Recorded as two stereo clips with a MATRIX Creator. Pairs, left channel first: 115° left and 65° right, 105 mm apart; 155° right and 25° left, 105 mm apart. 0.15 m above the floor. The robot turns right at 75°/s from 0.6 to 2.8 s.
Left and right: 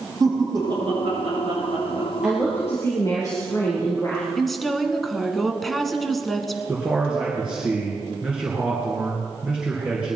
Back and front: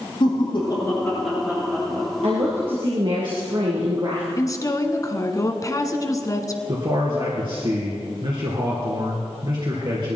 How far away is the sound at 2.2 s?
About 3 m.